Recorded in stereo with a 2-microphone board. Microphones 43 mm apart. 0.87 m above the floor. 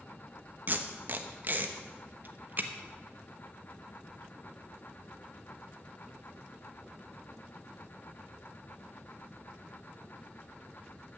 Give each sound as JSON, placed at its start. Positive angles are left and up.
{"t": 0.7, "sound": "tape being pulled", "side_deg": -45, "distance_m": 1.0}